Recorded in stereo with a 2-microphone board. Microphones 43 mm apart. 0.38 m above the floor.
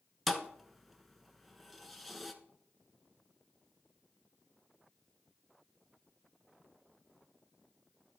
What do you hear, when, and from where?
0.3 s a thud: centre (ahead or behind), 1.1 m